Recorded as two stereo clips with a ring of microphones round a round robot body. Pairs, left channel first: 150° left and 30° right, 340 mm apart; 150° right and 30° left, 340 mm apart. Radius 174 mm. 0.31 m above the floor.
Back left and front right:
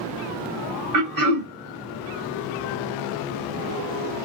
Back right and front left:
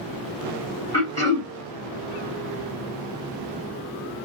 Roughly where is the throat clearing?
Right.